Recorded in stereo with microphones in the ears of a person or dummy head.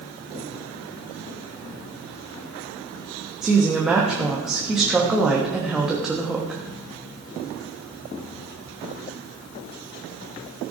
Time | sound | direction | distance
3.4 | a woman speaking | 5° right (ahead or behind) | 1.3 m